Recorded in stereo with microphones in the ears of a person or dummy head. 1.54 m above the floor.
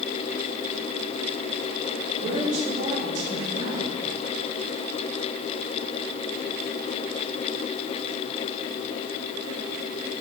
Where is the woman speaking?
40° right (ahead or behind), 5.5 m.